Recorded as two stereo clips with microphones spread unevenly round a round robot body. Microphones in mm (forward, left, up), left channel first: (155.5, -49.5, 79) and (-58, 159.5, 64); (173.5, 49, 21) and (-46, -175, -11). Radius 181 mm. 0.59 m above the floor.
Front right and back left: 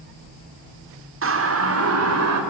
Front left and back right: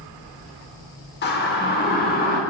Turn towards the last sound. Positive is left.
turn(degrees=110)